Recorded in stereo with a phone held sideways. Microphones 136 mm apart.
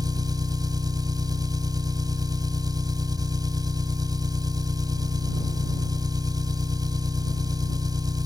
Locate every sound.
0.0 s an engine running: 30° right (ahead or behind)